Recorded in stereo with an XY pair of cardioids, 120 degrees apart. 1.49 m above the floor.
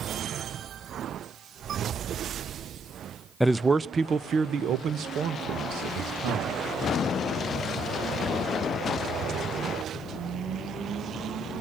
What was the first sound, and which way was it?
A man speaking, 5° left.